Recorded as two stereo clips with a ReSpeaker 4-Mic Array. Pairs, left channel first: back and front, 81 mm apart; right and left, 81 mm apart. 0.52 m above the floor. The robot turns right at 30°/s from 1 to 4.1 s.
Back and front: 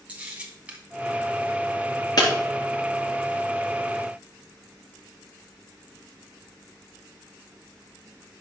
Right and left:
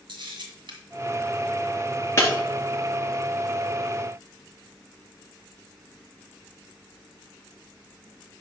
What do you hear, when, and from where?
0.1 s a camera shutter: 75° left, 1.9 m
2.2 s breaking glass: 145° right, 3 m